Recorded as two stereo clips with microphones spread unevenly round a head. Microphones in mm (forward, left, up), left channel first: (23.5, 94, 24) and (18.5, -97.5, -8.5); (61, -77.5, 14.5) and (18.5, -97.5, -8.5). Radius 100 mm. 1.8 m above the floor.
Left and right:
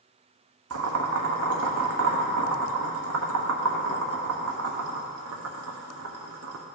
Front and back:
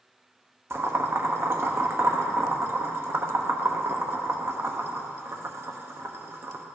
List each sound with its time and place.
0.7 s boiling: 110° right, 1.0 m